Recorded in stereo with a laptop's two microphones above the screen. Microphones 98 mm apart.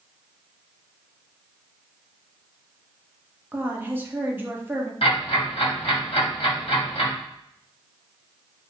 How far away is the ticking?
About 2 m.